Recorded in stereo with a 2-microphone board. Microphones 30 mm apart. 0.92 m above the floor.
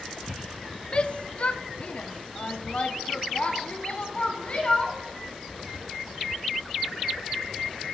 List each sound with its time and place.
0.9 s a shout: 40° left (ahead or behind), 0.9 m; by 5.0 s 45° left (ahead or behind), 2.5 m